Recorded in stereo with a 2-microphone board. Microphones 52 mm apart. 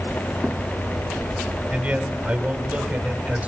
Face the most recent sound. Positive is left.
turn(degrees=-30)  # may be behind; listen again after turning